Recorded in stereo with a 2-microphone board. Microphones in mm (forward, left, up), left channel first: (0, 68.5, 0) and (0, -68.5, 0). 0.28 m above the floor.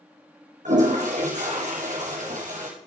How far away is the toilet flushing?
About 3.5 m.